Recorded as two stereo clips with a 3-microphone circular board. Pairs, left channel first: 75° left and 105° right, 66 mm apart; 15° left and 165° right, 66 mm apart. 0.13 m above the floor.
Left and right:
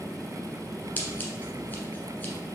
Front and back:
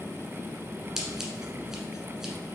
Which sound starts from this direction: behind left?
Scissors, at 1.0 s.